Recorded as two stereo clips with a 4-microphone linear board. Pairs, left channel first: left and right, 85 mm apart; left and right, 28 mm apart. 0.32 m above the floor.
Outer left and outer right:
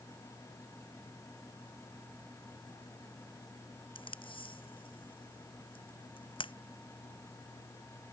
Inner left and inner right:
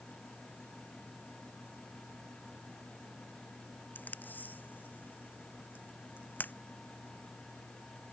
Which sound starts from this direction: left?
Tape being pulled, at 4.0 s.